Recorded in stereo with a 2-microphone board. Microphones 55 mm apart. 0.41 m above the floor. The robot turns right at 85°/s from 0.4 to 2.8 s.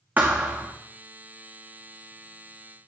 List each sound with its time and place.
0.2 s a thud: 30° right (ahead or behind), 2.5 m; by 0.7 s 55° right (ahead or behind), 2.5 m